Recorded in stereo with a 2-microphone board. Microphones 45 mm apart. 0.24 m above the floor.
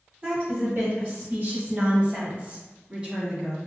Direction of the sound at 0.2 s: 35° right (ahead or behind).